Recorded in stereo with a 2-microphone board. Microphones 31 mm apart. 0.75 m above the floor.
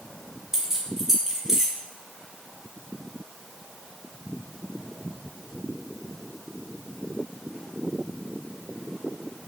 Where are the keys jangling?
15° right (ahead or behind), 0.8 m.